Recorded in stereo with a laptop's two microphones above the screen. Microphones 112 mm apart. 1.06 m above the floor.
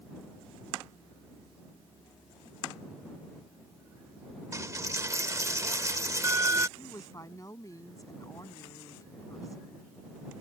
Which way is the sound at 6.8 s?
30° left (ahead or behind).